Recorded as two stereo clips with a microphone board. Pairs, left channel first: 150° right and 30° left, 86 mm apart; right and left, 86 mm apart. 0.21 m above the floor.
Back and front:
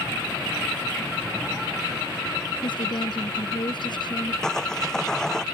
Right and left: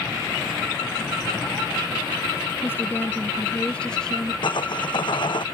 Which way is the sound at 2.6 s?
150° right.